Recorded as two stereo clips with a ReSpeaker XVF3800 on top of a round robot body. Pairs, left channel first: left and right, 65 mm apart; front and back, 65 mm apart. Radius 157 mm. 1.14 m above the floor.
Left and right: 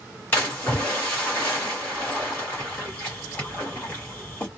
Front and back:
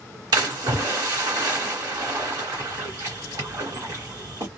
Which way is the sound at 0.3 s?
150° left.